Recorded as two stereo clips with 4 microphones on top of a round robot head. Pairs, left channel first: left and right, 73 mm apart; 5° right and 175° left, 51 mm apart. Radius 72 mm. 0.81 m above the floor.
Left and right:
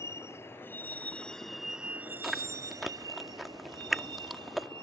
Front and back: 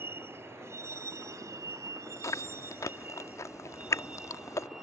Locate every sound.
0.0 s a vehicle: 135° left; by 4.8 s 105° right
2.2 s chewing: 5° right